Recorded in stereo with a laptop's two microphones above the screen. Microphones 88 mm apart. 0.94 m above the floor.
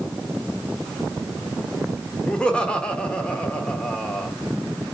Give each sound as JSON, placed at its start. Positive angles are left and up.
{"t": 2.3, "sound": "laughter", "side_deg": 10, "distance_m": 1.2}